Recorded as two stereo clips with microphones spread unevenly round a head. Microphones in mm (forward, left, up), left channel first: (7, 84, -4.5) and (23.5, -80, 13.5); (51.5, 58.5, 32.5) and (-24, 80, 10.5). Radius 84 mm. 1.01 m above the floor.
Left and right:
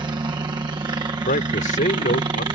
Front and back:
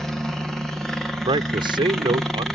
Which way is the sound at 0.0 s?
130° right.